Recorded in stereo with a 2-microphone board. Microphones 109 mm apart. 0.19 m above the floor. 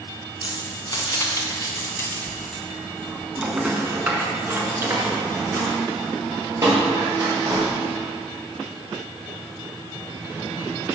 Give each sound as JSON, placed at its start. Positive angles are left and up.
{"t": 0.4, "sound": "keys jangling", "side_deg": 45, "distance_m": 1.3}